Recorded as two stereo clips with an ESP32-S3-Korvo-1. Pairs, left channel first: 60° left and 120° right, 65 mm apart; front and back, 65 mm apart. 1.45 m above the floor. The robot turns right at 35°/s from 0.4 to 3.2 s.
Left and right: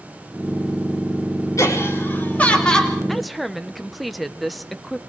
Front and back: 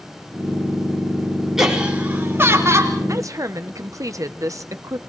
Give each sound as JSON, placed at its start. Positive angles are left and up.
{"t": 1.6, "sound": "laughter", "azimuth_deg": 100, "distance_m": 4.0}
{"t": 3.1, "sound": "a woman speaking", "azimuth_deg": 145, "distance_m": 1.1}